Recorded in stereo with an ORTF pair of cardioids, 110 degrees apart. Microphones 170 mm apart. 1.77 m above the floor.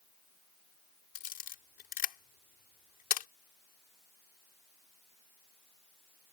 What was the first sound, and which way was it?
A camera shutter, 60° left.